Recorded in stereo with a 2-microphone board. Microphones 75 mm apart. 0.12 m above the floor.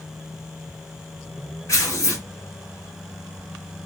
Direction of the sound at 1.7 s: 40° left (ahead or behind).